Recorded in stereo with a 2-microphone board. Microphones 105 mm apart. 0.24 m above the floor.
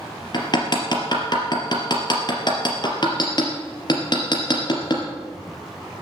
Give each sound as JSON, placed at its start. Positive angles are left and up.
{"t": 0.3, "sound": "hammering", "side_deg": 45, "distance_m": 3.0}